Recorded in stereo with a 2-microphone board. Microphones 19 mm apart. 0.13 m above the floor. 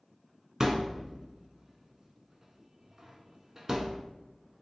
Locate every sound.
0.6 s a thud: 20° right (ahead or behind), 0.5 m